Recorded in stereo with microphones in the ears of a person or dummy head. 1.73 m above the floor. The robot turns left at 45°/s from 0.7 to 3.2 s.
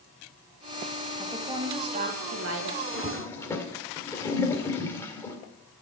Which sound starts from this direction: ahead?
A woman speaking, at 1.2 s.